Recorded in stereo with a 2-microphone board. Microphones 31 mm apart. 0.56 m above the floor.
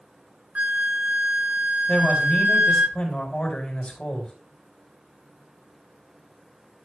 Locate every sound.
0.6 s a flute: 55° right (ahead or behind), 1.3 m
1.9 s a man speaking: 35° left (ahead or behind), 4 m